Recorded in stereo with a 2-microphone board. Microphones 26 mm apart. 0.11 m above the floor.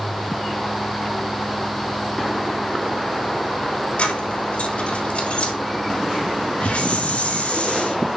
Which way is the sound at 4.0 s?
60° left (ahead or behind).